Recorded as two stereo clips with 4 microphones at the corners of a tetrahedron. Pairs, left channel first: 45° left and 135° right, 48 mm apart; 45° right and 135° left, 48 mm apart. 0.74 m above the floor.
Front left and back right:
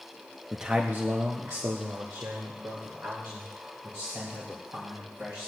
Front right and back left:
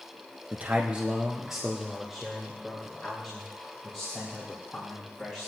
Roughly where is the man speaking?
Behind left.